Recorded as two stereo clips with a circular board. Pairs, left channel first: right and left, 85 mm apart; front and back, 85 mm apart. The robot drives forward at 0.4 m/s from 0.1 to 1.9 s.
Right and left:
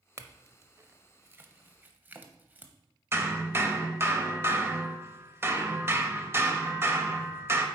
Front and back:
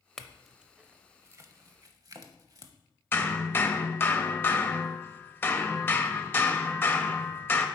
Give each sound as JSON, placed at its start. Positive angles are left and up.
{"t": 0.2, "sound": "a clink", "azimuth_deg": 80, "distance_m": 0.6}
{"t": 3.1, "sound": "hammering", "azimuth_deg": 50, "distance_m": 0.8}